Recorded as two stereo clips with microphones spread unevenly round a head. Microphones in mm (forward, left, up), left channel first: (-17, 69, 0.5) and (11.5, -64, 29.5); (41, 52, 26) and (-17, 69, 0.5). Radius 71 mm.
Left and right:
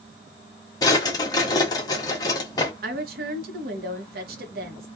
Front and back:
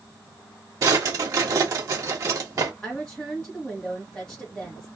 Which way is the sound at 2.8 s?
100° right.